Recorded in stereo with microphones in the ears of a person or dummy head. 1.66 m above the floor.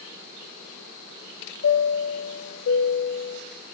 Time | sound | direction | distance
1.6 | a chime | 75° left (ahead or behind) | 0.6 m